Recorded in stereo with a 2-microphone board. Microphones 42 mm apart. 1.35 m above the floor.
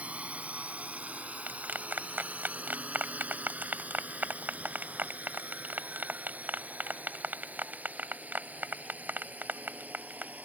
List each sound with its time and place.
0.0 s a drone: 30° right (ahead or behind); by 10.4 s 40° right (ahead or behind)
1.5 s a clap: 45° right (ahead or behind)